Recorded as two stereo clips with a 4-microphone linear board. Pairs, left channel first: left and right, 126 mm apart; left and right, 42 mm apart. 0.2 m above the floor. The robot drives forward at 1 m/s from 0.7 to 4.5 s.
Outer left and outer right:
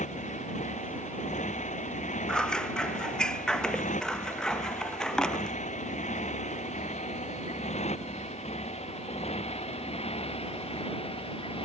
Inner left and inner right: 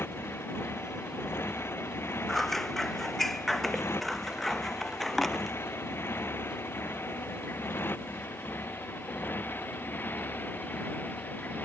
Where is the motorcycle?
75° left (ahead or behind); by 11.7 s 50° left (ahead or behind).